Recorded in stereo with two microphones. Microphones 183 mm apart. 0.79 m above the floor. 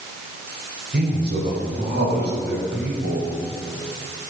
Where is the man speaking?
60° right (ahead or behind), 4 m; by 3.3 s 80° right, 6.5 m.